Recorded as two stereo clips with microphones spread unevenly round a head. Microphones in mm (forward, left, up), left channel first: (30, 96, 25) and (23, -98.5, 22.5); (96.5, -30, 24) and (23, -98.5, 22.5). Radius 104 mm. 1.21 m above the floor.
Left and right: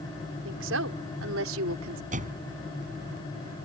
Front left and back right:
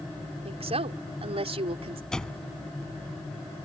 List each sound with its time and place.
0.5 s a woman speaking: 120° right; by 2.0 s 115° right
2.1 s a door slam: 40° right